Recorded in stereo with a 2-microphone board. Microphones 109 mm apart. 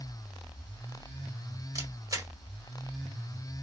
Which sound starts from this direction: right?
A camera shutter, at 1.8 s.